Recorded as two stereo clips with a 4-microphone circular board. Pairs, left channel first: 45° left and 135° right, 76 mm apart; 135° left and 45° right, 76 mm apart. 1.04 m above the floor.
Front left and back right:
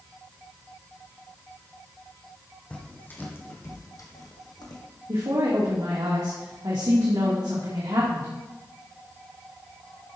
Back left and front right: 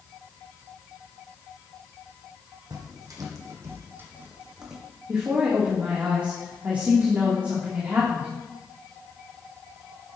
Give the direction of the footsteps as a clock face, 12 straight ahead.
1 o'clock.